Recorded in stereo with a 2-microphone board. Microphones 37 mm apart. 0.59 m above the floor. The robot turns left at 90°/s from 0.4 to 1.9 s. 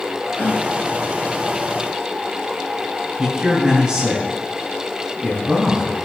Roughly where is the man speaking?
Right.